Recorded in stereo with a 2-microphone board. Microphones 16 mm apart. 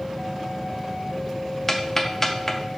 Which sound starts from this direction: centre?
Ticking, at 1.7 s.